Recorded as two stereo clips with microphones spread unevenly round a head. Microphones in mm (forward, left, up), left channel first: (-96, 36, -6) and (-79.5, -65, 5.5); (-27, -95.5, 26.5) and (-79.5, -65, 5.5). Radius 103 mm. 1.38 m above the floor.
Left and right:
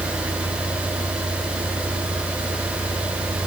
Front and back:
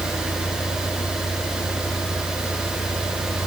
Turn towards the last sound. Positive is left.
turn(degrees=-20)